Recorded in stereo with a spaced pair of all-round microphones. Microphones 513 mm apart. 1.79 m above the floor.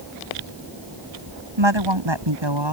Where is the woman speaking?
60° right (ahead or behind); by 2.7 s 55° right (ahead or behind).